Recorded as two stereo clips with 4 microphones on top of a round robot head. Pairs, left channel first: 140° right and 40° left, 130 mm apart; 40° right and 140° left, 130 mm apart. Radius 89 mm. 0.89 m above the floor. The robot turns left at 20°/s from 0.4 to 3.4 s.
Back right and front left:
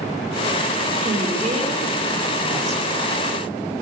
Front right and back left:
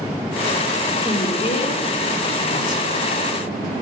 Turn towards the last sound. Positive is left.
turn(degrees=-40)